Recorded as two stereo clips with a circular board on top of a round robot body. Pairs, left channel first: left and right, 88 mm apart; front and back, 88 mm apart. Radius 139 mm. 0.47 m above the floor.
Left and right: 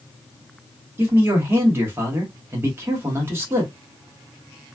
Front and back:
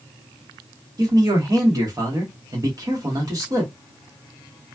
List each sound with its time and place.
1.0 s a man speaking: 150° right, 1.4 m